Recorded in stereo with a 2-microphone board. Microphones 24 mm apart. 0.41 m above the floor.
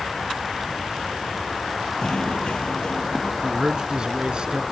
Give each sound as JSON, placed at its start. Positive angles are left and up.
{"t": 2.0, "sound": "knocking", "side_deg": 40}
{"t": 3.4, "sound": "a man speaking", "side_deg": -35}